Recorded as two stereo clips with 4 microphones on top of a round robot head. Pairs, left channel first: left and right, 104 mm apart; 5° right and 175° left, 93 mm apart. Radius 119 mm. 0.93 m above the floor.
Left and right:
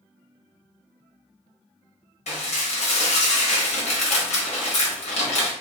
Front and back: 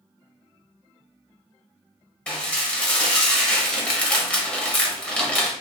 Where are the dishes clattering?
75° left, 1.0 m.